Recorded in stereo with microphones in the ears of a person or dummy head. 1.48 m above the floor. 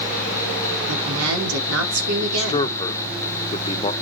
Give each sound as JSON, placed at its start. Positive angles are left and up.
{"t": 0.9, "sound": "a woman speaking", "side_deg": -80, "distance_m": 4.0}
{"t": 2.2, "sound": "a man speaking", "side_deg": 30, "distance_m": 1.3}